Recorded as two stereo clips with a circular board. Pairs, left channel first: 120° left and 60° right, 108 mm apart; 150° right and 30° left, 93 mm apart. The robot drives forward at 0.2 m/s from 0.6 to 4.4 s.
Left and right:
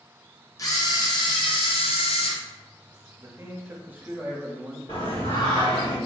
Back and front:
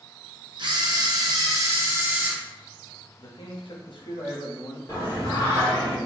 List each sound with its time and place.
0.6 s a camera shutter: 65° left, 0.5 m; by 2.4 s 100° left, 0.5 m
3.2 s a man speaking: 115° right, 0.5 m; by 4.8 s 135° right, 0.6 m
4.9 s singing: 160° left, 1.5 m